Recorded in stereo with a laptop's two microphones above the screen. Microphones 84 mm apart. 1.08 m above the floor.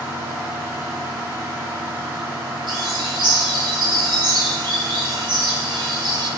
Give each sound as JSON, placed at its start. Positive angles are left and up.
{"t": 0.0, "sound": "a fan", "side_deg": -50, "distance_m": 3.0}
{"t": 2.7, "sound": "a bird", "side_deg": -70, "distance_m": 1.8}